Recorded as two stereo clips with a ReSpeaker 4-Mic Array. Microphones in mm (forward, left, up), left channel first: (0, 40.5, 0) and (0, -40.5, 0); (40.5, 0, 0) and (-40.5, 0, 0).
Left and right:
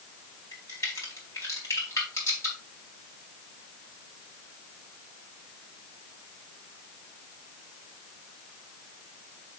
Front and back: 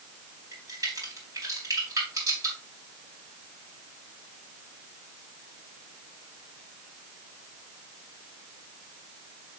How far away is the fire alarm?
No fire alarm in this recording.